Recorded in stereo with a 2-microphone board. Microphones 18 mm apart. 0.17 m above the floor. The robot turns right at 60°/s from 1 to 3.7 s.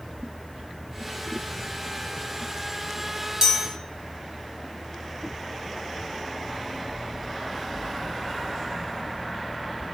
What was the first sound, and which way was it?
A chime, 35° right (ahead or behind).